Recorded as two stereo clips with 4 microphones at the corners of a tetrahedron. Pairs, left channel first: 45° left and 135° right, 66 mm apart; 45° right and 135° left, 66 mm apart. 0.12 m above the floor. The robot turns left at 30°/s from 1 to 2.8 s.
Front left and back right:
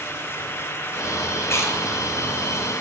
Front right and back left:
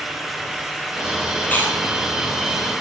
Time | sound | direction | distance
1.4 | chewing | 20° left | 2.5 m